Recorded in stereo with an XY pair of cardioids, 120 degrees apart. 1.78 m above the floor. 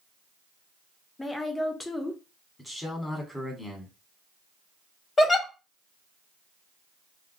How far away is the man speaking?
About 1.3 m.